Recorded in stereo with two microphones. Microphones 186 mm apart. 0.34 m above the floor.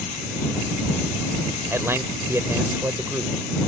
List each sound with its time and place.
1.7 s a man speaking: 15° right (ahead or behind)